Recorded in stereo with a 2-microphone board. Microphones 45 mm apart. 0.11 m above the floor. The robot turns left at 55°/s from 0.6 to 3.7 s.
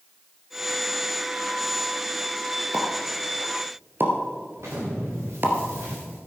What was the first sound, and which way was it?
A pop, 30° right (ahead or behind).